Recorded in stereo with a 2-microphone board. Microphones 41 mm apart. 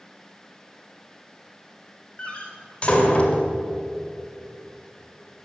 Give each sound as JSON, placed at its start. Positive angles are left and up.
{"t": 2.2, "sound": "a door slam", "side_deg": 30, "distance_m": 2.0}